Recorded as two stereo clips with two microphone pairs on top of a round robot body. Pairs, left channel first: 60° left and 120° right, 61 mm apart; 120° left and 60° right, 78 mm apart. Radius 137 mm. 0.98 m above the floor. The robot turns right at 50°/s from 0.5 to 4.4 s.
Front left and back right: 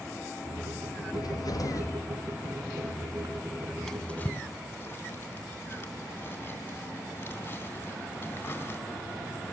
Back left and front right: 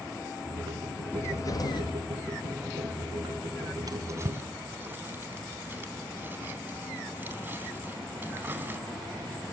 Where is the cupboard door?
60° left, 1.6 m; by 2.0 s 100° left, 1.6 m.